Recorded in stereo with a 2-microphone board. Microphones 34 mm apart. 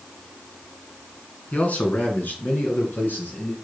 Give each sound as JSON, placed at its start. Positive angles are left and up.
{"t": 1.5, "sound": "a man speaking", "side_deg": 45, "distance_m": 2.0}